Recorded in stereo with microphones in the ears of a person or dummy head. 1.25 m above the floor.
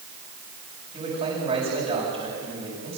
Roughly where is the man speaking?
Right.